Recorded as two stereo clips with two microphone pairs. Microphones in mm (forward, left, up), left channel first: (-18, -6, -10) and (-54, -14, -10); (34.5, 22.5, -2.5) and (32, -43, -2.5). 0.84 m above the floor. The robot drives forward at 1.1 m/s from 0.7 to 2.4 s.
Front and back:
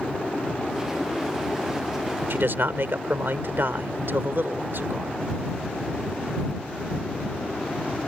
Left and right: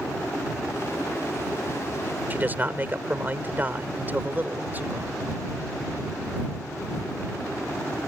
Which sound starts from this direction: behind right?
A man speaking, at 2.3 s.